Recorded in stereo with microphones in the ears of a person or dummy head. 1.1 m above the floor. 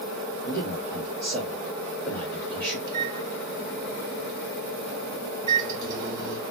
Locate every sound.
0.5 s a man speaking: 10° left (ahead or behind), 1.6 m
2.9 s a microwave: 25° right (ahead or behind), 1.1 m